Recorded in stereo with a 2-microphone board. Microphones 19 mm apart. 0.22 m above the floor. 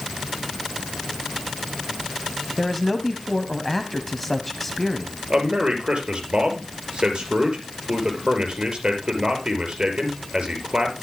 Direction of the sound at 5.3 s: 50° right (ahead or behind).